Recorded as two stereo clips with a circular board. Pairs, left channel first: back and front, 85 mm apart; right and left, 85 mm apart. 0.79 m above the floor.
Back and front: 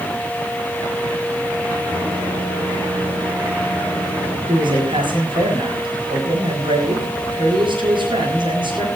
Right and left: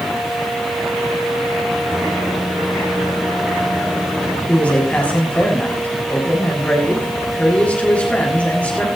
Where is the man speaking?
15° right, 7.5 m.